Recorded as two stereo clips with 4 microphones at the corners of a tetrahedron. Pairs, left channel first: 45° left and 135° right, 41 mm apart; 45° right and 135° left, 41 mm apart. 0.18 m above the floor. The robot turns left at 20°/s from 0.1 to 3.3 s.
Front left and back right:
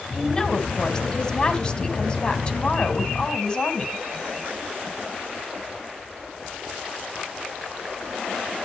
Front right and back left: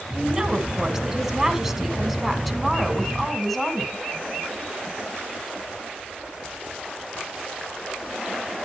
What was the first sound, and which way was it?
A woman speaking, 95° left.